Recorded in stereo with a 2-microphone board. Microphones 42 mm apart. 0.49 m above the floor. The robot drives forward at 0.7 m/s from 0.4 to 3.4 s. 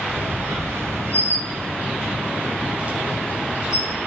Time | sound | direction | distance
0.1 | a squeak | 70° right (ahead or behind) | 0.9 m